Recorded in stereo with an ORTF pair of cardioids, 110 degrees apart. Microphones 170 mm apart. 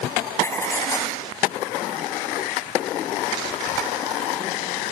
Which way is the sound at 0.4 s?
15° left.